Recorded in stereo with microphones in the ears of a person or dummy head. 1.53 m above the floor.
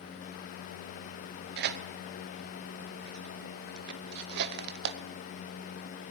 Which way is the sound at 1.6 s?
60° right (ahead or behind).